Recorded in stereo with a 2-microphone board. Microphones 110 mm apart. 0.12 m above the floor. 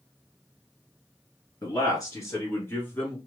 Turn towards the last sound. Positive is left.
turn(degrees=15)  # may be behind; listen again after turning